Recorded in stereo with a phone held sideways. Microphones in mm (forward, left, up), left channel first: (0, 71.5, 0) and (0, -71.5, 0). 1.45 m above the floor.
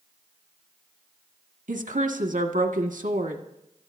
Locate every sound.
1.7 s a woman speaking: 80° right, 1.6 m